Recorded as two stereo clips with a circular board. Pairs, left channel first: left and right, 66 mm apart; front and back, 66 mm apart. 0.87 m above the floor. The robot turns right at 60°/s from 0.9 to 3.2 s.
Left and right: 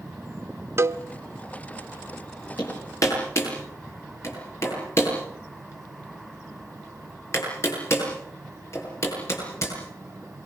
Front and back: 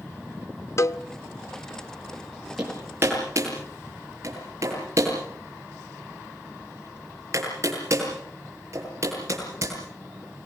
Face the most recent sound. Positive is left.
turn(degrees=135)